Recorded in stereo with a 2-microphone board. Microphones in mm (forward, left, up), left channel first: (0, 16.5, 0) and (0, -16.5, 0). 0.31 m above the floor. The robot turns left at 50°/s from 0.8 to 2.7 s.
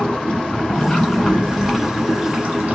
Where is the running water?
30° left, 1.3 m; by 2.7 s 65° right, 1.3 m.